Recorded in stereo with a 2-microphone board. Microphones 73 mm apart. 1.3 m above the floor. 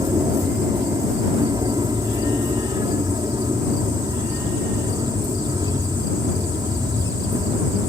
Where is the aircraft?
65° right (ahead or behind).